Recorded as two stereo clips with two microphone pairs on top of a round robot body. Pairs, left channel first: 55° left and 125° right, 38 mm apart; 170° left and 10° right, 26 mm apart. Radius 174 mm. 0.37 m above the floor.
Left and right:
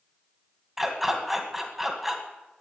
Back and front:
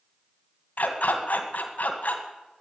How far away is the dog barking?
About 2 m.